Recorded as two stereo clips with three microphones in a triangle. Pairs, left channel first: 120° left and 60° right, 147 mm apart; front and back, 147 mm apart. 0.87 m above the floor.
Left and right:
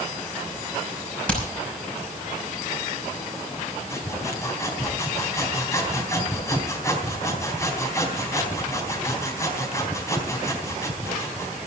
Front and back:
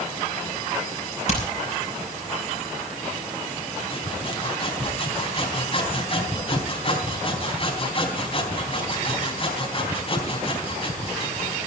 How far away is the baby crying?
No baby crying in this recording.